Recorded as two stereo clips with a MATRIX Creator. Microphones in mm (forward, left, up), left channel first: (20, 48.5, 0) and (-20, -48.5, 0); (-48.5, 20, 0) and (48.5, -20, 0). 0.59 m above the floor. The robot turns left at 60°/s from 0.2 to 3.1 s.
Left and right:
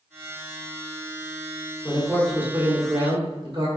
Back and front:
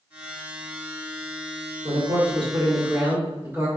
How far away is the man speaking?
About 1.5 m.